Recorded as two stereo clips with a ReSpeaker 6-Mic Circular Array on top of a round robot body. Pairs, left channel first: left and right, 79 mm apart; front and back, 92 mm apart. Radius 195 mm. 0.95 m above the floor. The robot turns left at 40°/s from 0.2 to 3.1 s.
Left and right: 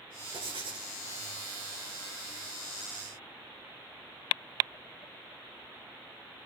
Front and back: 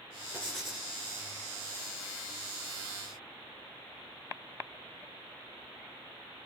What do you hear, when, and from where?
0.3 s writing: 80° right, 9 m; by 0.9 s 100° right, 9 m